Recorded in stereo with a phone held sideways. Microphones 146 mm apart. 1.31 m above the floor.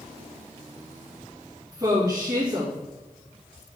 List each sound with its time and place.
1.7 s a woman speaking: 25° right (ahead or behind), 2 m